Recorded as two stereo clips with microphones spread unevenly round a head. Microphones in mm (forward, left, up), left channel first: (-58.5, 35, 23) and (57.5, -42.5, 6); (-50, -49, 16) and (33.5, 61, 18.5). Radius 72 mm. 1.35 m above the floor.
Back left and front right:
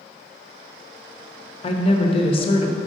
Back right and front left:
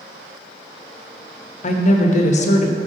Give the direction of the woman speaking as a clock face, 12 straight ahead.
5 o'clock.